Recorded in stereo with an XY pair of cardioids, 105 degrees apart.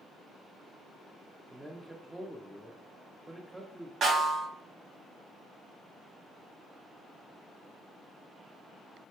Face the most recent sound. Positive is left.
turn(degrees=-60)